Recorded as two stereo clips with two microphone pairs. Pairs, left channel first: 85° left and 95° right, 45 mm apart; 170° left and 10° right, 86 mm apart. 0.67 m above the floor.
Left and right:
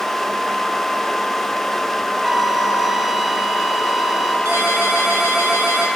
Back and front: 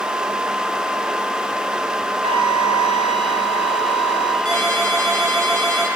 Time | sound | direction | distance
2.2 | a flute | 10° right | 1.8 m
4.5 | a ringtone | 105° right | 7.5 m